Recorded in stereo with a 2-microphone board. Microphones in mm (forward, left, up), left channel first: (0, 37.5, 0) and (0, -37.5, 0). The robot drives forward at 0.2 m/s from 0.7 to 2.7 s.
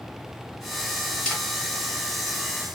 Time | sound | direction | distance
1.2 | a camera shutter | 10° left (ahead or behind) | 1.7 m